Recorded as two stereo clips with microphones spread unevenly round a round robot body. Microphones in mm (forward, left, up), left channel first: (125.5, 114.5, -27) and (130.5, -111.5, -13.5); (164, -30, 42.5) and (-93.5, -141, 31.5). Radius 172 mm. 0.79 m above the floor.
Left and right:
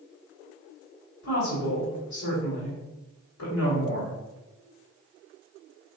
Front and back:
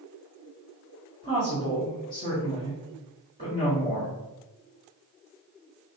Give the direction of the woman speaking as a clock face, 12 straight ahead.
8 o'clock.